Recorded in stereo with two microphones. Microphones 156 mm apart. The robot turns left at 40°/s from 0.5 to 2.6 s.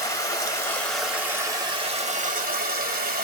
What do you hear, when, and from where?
0.0 s running water: 20° left, 1.4 m; by 3.2 s 65° right, 1.4 m